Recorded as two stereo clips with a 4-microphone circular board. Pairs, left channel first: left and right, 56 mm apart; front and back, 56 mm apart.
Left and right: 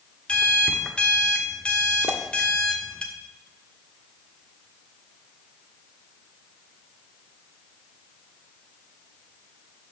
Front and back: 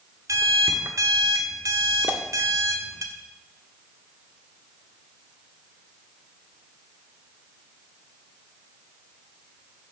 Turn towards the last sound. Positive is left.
turn(degrees=-125)